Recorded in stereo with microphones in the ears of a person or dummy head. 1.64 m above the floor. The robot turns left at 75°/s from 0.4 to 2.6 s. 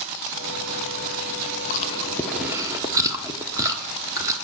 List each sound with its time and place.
1.7 s chewing: 45° left (ahead or behind), 1.0 m; by 4.3 s 20° right (ahead or behind), 1.0 m